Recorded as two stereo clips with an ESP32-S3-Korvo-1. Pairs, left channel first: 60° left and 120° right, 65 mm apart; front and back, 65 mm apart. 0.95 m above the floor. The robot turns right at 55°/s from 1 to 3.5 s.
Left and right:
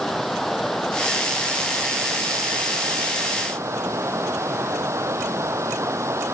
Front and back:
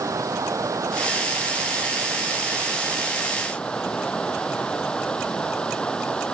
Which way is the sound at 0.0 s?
145° left.